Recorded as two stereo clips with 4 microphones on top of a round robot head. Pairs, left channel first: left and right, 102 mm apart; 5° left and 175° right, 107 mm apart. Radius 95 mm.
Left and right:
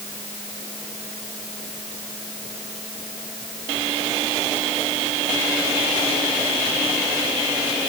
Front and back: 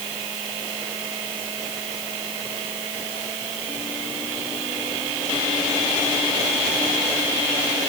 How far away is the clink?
I don't hear a clink.